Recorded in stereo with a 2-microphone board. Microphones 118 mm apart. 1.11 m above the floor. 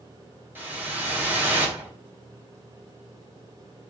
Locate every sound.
0.6 s a whoosh: 15° right (ahead or behind), 3 m